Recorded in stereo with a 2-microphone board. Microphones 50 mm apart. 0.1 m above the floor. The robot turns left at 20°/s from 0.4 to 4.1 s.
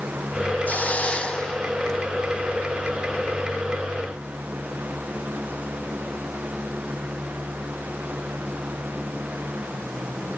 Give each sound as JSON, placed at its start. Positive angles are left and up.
{"t": 0.7, "sound": "a hiss", "side_deg": 35, "distance_m": 1.4}